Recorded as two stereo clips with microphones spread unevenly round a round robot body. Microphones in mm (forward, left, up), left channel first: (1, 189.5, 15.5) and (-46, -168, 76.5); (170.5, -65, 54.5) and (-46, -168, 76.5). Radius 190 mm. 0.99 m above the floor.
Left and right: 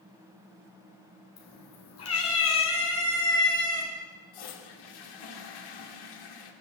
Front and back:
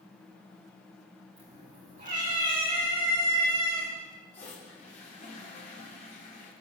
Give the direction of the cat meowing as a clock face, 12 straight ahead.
8 o'clock.